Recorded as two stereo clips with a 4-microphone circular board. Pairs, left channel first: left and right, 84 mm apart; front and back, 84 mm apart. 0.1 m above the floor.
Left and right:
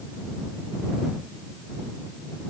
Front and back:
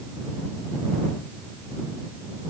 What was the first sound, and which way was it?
Only background noise.